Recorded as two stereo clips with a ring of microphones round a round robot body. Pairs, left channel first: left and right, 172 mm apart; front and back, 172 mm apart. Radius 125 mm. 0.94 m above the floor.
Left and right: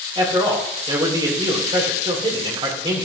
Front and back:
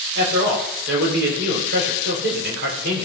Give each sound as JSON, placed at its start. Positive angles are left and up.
{"t": 0.1, "sound": "a man speaking", "azimuth_deg": -155, "distance_m": 3.5}